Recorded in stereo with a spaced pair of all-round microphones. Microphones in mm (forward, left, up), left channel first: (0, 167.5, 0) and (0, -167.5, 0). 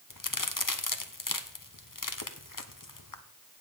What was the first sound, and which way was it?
A crack, 70° left (ahead or behind).